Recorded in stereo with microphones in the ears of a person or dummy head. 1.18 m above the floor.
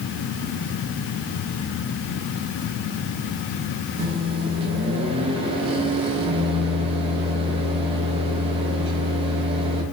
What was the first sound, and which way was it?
A microwave, 30° right (ahead or behind).